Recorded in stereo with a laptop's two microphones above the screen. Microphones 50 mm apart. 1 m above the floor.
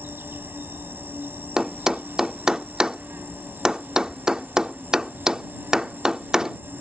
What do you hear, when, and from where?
0.0 s an insect: 45° right (ahead or behind)
1.6 s a thud: 15° right (ahead or behind)